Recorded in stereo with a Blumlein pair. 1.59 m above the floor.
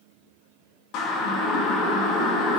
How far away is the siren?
About 2.5 m.